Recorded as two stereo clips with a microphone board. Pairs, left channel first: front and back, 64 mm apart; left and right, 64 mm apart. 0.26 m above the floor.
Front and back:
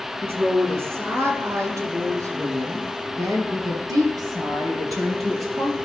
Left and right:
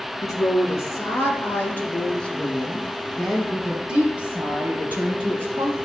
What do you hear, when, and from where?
0.2 s a woman speaking: 125° left, 3 m; by 5.8 s 145° right, 4 m